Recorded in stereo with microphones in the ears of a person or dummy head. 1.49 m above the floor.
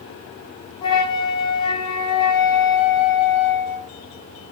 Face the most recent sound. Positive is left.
turn(degrees=35)  # may be behind; listen again after turning